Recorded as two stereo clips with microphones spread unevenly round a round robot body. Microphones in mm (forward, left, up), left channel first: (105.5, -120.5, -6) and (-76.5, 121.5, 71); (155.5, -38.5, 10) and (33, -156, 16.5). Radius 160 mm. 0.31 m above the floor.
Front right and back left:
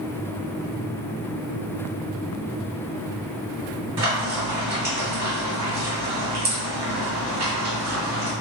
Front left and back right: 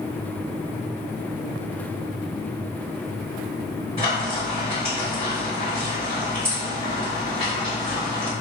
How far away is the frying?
About 2.0 m.